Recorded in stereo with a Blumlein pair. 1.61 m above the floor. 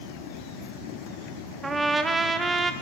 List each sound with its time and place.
1.6 s a trumpet: 10° right, 0.6 m